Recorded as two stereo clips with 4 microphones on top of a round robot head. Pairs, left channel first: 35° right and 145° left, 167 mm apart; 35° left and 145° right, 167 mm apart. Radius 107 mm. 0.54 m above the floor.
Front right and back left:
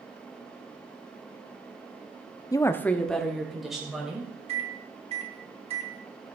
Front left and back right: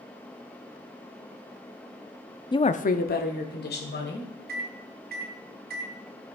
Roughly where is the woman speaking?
Ahead.